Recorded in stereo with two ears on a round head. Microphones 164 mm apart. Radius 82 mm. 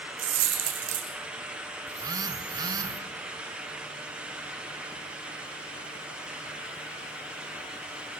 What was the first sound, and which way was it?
A dropped coin, 85° right.